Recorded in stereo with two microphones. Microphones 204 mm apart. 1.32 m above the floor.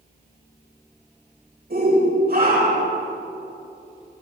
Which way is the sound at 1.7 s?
50° right (ahead or behind).